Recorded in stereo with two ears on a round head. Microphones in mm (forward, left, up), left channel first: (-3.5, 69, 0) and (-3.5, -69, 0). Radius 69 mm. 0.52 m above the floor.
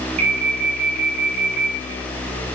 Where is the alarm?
40° right (ahead or behind), 3.5 m.